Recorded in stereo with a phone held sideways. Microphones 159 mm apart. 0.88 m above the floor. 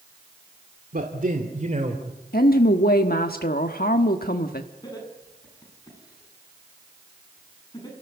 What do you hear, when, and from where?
0.9 s a man speaking: 65° right (ahead or behind), 1.9 m; by 2.0 s 45° right (ahead or behind), 3 m
2.3 s a woman speaking: 70° left (ahead or behind), 1.4 m
4.8 s laughter: 25° left (ahead or behind), 10 m